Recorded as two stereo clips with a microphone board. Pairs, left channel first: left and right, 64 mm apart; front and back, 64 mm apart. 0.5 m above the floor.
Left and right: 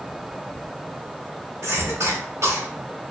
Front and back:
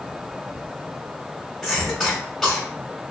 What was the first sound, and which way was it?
A cough, 90° right.